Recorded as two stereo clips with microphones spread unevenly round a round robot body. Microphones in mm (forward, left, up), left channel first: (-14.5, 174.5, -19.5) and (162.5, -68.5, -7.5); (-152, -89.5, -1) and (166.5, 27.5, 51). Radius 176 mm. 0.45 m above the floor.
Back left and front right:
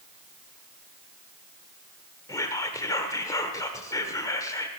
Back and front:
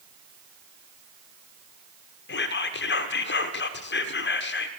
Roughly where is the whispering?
Behind.